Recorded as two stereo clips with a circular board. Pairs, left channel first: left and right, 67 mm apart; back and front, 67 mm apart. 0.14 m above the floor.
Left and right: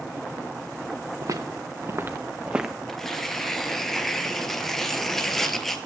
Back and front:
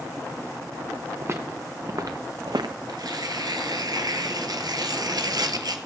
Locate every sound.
1.2 s footsteps: 55° right, 1.1 m; by 2.8 s straight ahead, 0.6 m
2.9 s tearing paper: 5° left, 1.1 m